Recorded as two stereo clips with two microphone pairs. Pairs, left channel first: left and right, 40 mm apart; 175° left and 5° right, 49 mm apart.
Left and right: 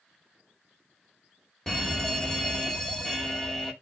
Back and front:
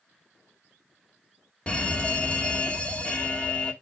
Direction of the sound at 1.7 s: 150° left.